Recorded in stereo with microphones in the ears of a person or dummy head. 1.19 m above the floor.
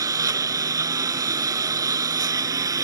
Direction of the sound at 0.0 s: 15° right (ahead or behind).